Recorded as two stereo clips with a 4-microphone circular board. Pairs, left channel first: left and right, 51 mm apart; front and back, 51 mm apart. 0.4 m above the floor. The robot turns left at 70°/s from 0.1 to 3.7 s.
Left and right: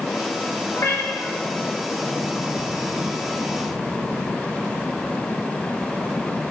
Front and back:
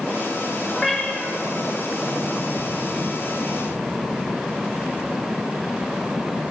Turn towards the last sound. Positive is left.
turn(degrees=-110)